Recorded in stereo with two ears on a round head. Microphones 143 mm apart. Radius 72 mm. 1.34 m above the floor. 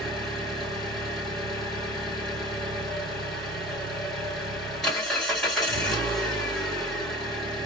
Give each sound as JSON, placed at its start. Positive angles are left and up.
{"t": 0.0, "sound": "an engine running", "side_deg": 0, "distance_m": 2.5}